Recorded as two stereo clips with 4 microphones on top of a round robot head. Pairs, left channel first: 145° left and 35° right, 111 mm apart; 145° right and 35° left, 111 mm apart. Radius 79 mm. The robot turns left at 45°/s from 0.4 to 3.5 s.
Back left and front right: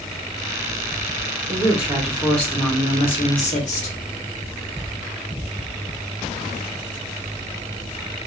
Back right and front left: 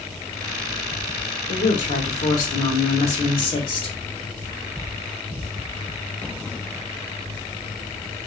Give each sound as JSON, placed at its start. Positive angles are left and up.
{"t": 1.5, "sound": "a woman speaking", "azimuth_deg": -100, "distance_m": 1.1}